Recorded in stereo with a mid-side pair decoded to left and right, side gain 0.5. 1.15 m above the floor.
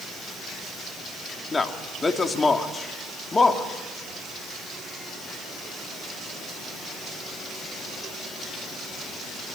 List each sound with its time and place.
1.5 s a man speaking: 25° left, 3 m